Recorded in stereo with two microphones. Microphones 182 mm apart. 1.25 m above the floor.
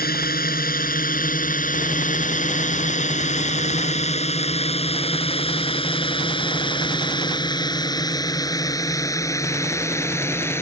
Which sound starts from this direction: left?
A drone, at 0.0 s.